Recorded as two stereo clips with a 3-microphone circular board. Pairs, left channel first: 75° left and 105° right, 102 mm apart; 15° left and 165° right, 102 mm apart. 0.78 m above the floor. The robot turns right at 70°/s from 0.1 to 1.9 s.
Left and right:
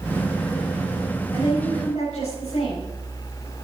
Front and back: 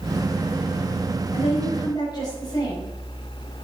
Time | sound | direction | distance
1.3 | a woman speaking | 25° left | 4.5 m